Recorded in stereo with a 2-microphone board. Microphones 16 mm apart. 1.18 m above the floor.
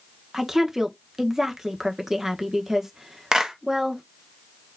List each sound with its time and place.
0.3 s a woman speaking: 25° right (ahead or behind), 1.2 m
3.3 s a clap: 50° right (ahead or behind), 1.1 m